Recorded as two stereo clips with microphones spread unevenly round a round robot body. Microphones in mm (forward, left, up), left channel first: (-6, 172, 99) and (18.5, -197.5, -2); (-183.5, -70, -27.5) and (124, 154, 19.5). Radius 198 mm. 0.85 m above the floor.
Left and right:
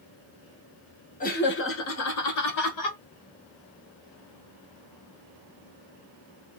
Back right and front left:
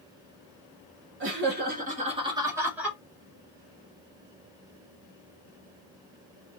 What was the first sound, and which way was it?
Laughter, 15° left.